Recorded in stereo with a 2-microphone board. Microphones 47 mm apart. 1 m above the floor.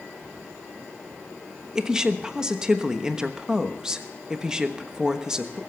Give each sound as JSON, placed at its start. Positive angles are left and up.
{"t": 1.8, "sound": "a woman speaking", "side_deg": -15, "distance_m": 1.1}